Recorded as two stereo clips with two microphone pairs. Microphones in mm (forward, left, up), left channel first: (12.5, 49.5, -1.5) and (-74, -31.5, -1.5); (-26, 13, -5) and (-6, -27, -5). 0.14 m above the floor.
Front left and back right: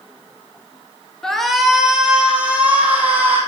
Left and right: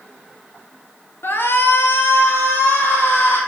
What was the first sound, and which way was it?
A shout, 130° left.